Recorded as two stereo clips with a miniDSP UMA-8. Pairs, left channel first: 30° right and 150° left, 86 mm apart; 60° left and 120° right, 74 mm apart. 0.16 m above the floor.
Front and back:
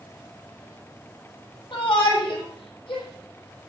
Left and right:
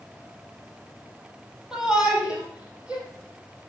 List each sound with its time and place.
1.7 s a shout: 40° right, 5 m; by 3.0 s 45° right, 6 m